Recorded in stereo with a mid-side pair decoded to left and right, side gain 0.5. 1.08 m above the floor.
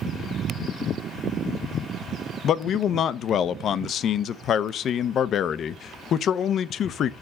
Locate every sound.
2.4 s a man speaking: 60° left, 0.6 m